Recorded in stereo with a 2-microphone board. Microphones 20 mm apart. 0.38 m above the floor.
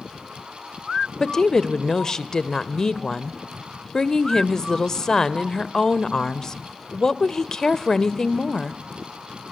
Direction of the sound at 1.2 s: 30° left (ahead or behind).